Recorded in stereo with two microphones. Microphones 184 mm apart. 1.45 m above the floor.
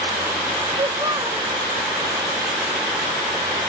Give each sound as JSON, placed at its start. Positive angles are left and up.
{"t": 0.8, "sound": "a child speaking", "side_deg": -25, "distance_m": 1.1}